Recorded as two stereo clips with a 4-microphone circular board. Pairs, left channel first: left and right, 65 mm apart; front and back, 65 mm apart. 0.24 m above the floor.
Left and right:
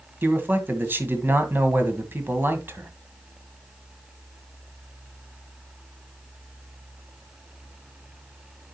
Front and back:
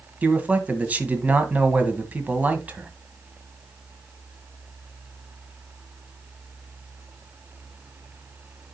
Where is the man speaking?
125° right, 1.5 m.